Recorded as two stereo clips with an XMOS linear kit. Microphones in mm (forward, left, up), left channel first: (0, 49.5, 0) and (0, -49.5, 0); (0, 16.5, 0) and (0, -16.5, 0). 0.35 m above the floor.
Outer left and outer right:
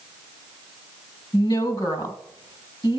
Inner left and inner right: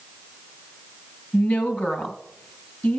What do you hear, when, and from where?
1.3 s a woman speaking: 45° left (ahead or behind), 1.9 m